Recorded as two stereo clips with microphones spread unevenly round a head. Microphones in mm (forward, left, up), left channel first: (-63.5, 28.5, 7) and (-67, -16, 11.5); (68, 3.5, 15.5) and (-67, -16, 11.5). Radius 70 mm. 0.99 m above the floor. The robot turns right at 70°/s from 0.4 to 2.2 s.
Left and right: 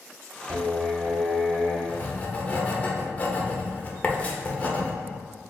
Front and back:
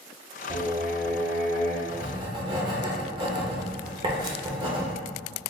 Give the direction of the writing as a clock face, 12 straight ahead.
8 o'clock.